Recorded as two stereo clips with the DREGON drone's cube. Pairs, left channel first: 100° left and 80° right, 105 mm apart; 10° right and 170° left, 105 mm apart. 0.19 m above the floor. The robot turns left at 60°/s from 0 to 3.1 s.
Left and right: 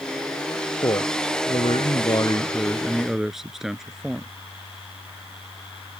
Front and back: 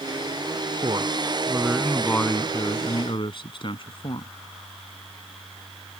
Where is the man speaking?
140° left; by 4.3 s 5° left.